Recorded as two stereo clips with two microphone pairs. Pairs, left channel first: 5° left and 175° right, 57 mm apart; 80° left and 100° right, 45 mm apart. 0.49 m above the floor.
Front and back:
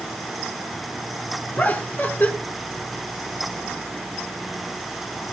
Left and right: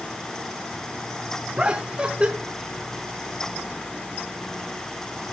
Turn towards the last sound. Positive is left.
turn(degrees=-40)